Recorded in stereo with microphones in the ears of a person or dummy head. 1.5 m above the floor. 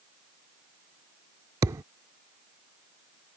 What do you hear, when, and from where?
1.6 s a thud: 20° right (ahead or behind)